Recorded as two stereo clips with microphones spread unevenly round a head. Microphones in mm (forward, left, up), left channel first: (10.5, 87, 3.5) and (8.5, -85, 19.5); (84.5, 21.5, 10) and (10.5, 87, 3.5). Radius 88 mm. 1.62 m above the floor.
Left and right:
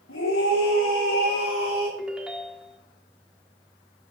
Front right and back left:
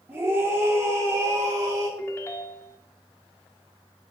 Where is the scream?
65° left, 4.5 m; by 1.9 s 90° left, 4.5 m.